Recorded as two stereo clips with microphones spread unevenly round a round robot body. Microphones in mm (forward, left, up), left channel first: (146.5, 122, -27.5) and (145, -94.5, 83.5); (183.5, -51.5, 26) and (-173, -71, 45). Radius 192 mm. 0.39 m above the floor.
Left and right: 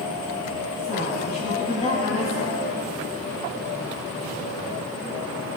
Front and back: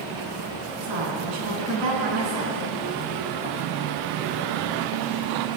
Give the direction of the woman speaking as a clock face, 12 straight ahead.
7 o'clock.